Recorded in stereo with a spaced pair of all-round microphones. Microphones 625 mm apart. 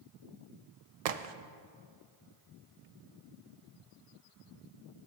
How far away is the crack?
About 0.5 m.